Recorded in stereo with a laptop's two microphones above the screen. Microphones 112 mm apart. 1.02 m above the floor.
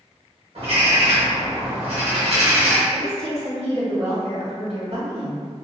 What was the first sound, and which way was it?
A bird, 60° right (ahead or behind).